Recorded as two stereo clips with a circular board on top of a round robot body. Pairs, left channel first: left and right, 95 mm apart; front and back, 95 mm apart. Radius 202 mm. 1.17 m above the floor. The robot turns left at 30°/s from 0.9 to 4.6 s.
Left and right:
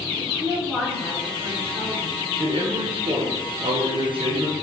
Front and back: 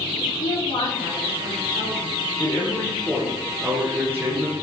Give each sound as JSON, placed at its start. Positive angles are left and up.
{"t": 0.2, "sound": "a woman speaking", "azimuth_deg": 10, "distance_m": 3.5}
{"t": 2.4, "sound": "a man speaking", "azimuth_deg": -60, "distance_m": 1.7}